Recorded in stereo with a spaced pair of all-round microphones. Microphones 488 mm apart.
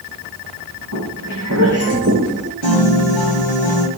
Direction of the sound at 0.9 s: 40° right (ahead or behind).